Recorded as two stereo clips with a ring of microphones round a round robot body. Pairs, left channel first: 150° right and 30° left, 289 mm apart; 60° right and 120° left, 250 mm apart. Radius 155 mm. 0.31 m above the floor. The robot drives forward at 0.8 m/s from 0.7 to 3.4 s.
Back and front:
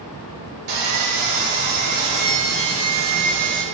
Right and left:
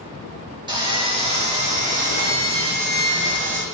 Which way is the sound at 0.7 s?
50° left.